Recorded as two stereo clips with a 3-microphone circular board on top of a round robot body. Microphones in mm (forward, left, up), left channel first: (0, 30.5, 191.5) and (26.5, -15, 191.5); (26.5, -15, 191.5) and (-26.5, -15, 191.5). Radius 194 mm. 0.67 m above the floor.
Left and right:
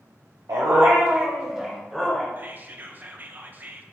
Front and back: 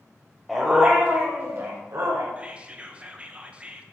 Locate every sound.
0.5 s a dog barking: 90° right, 1.0 m; by 2.3 s 155° right, 1.3 m
2.4 s whispering: 110° right, 1.0 m